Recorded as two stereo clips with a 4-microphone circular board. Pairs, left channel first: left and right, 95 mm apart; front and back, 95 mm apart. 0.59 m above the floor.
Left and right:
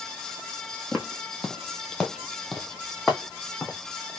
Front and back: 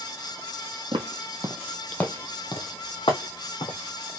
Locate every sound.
0.9 s footsteps: 175° left, 1.0 m; by 3.8 s straight ahead, 1.8 m